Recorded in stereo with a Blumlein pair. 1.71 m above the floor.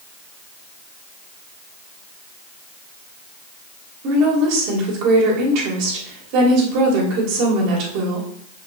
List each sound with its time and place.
4.0 s a woman speaking: 45° right, 3 m